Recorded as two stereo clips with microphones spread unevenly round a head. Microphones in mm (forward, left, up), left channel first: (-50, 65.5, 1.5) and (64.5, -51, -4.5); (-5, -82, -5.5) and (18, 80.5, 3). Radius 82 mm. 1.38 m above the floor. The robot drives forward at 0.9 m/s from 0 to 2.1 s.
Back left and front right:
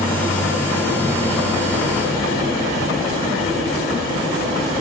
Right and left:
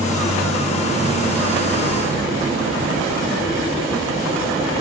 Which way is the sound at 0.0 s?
65° left.